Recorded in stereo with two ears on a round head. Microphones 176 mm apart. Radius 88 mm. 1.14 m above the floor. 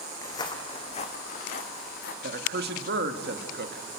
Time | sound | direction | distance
0.2 | footsteps | 15° left (ahead or behind) | 2 m
2.2 | a man speaking | 55° right (ahead or behind) | 2 m